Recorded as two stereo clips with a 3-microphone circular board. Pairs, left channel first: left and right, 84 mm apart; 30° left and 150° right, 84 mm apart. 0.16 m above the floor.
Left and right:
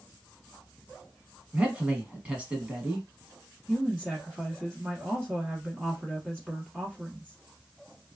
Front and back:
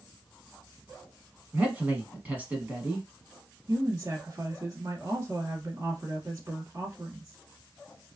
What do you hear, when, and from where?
1.5 s a man speaking: 130° right, 1.0 m
3.7 s a woman speaking: 160° right, 1.2 m